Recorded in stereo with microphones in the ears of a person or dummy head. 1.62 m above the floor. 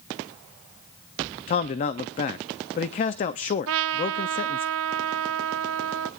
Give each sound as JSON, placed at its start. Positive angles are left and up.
{"t": 1.5, "sound": "a man speaking", "side_deg": 30, "distance_m": 0.5}
{"t": 3.7, "sound": "a trumpet", "side_deg": -70, "distance_m": 0.6}